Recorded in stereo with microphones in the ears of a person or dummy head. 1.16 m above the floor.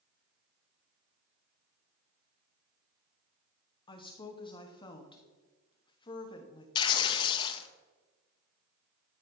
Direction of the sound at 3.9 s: 25° left (ahead or behind).